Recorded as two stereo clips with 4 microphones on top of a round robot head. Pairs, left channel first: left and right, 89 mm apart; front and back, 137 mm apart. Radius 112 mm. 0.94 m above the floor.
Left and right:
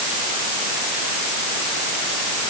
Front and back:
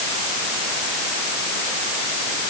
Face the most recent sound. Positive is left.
No sound to turn to.